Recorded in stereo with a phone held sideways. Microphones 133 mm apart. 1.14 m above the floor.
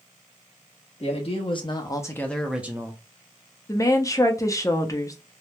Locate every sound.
1.0 s a man speaking: 50° left (ahead or behind), 1.0 m; by 3.0 s 25° right (ahead or behind), 0.6 m
3.7 s a woman speaking: 25° left (ahead or behind), 0.5 m